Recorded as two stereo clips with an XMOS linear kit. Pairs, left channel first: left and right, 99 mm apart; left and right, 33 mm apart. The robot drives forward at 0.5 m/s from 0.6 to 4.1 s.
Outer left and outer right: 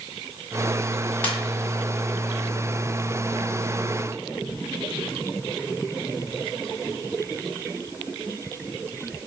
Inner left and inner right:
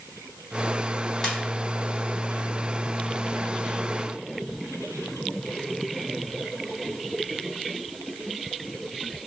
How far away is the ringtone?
About 1.8 m.